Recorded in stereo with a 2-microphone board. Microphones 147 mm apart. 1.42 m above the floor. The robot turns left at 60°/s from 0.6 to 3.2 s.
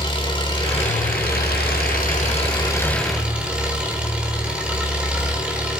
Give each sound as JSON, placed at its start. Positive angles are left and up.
{"t": 0.0, "sound": "an engine running", "azimuth_deg": 150, "distance_m": 3.5}